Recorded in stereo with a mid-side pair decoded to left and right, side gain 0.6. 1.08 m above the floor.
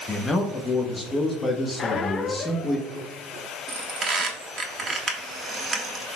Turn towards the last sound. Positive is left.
turn(degrees=-30)